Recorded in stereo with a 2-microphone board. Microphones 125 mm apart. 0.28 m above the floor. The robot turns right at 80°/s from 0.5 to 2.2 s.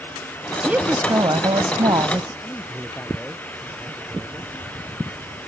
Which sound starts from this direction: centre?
A man speaking, at 2.4 s.